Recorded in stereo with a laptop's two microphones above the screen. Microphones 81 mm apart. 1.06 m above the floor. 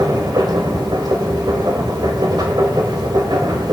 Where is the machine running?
60° right (ahead or behind), 1.6 m.